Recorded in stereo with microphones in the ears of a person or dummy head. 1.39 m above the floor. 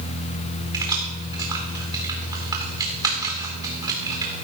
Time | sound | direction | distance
0.7 | keys jangling | 20° right (ahead or behind) | 2.5 m